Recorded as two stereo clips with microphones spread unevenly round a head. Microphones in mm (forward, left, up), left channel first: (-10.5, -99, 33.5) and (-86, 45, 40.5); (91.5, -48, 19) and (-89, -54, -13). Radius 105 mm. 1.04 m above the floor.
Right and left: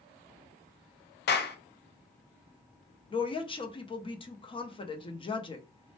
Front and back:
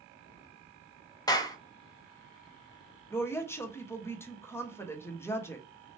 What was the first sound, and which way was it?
A clap, 70° right.